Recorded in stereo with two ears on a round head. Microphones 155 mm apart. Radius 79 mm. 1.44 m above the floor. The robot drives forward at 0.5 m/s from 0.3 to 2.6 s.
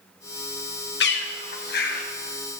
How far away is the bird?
About 1.7 m.